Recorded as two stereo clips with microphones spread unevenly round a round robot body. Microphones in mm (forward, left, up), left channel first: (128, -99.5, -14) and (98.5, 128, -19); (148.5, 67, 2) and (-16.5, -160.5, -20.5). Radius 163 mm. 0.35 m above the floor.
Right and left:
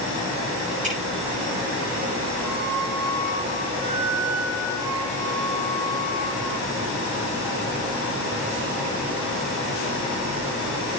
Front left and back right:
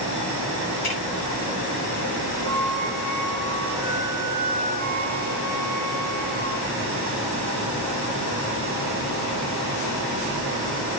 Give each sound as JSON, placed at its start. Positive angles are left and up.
{"t": 0.8, "sound": "dripping", "azimuth_deg": 35, "distance_m": 7.5}
{"t": 2.4, "sound": "a flute", "azimuth_deg": 140, "distance_m": 5.0}